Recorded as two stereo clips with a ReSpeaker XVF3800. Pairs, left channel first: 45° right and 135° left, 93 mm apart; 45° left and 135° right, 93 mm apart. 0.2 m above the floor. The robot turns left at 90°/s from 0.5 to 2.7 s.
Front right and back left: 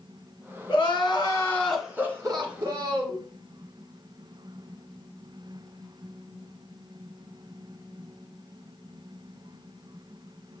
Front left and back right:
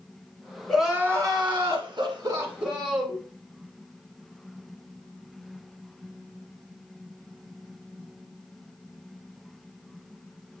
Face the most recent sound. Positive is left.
turn(degrees=140)